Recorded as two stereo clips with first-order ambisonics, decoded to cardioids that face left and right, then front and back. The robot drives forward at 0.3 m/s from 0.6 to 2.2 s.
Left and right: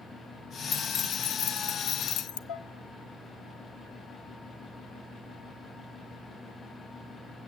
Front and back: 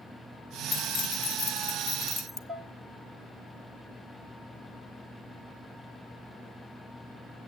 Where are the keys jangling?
45° left, 0.8 m; by 2.4 s 75° left, 0.6 m.